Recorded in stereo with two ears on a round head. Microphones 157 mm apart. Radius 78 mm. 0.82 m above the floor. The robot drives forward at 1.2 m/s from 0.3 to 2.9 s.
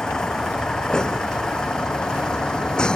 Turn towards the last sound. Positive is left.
turn(degrees=5)  # may be behind; listen again after turning